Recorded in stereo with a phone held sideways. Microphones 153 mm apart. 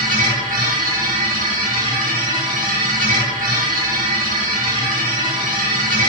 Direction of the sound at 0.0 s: 60° right (ahead or behind).